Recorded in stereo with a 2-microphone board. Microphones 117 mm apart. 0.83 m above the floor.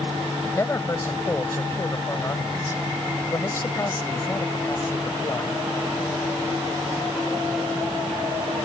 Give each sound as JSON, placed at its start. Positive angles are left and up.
{"t": 0.4, "sound": "a man speaking", "side_deg": 25}